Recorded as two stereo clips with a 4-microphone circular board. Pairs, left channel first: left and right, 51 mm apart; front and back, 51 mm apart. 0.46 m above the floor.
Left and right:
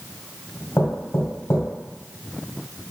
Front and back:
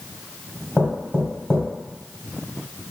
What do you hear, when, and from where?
0.8 s knocking: 75° left, 1.5 m